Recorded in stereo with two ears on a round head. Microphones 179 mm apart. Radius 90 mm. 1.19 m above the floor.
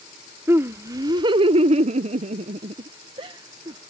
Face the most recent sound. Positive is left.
turn(degrees=-20)  # may be behind; listen again after turning